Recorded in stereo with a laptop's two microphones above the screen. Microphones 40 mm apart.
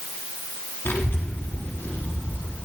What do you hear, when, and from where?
0.8 s a child speaking: 80° left, 1.5 m